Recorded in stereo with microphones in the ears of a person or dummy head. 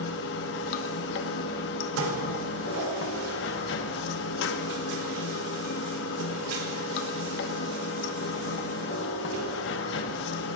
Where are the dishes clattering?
85° right, 3.5 m.